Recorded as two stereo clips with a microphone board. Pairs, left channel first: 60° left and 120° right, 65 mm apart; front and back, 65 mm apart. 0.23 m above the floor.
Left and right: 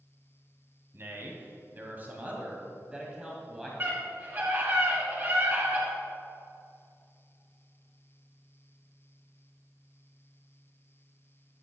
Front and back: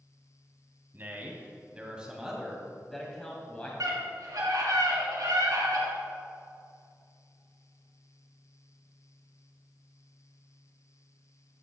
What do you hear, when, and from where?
0.9 s a man speaking: 145° right, 1.9 m; by 3.7 s 40° right, 1.7 m
3.8 s a scream: straight behind, 2.5 m